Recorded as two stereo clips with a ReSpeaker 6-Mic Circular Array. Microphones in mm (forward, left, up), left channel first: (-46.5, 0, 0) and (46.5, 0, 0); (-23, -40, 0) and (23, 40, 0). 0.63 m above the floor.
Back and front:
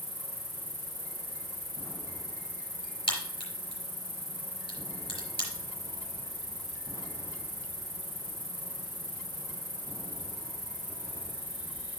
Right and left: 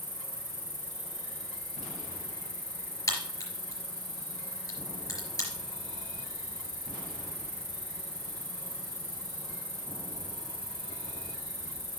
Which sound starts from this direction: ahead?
An insect, at 0.0 s.